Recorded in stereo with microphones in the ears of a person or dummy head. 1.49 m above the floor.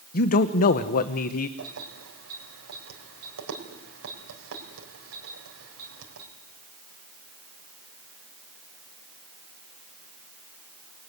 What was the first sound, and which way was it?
A man speaking, 45° left (ahead or behind).